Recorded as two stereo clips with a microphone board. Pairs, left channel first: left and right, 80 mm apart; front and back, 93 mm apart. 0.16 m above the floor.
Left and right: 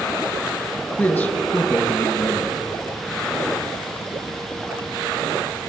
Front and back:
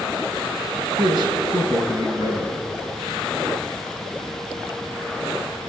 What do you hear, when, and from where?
1.0 s a man speaking: 155° left, 1.9 m